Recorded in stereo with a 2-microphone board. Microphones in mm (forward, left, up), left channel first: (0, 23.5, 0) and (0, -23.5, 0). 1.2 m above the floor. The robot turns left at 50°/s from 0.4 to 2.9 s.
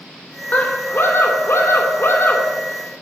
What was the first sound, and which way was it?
A scream, 145° left.